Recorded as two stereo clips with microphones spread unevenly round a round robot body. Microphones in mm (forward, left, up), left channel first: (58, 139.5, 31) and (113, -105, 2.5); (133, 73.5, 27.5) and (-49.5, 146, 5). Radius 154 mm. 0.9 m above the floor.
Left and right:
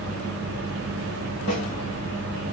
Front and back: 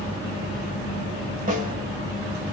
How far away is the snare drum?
About 1.6 m.